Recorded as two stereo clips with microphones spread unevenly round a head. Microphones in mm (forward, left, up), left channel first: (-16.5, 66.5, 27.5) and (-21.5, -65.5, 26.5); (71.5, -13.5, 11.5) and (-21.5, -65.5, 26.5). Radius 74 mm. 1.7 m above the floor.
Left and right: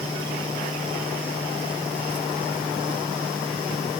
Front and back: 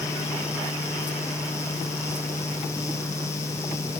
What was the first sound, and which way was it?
Only background noise.